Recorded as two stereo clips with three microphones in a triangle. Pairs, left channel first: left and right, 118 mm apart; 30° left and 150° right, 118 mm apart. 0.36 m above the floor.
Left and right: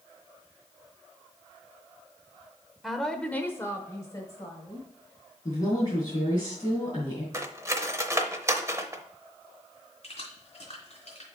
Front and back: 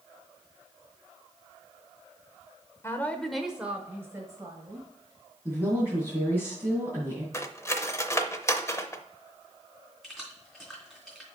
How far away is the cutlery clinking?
About 0.6 m.